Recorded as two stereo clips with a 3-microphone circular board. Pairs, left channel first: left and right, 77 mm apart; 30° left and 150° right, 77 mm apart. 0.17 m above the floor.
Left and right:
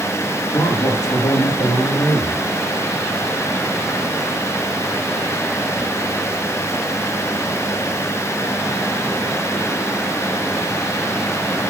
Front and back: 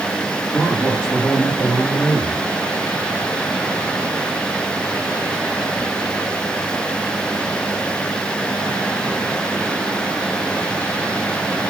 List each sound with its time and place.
0.5 s a man speaking: 115° left, 8 m; by 2.4 s 110° left, 10 m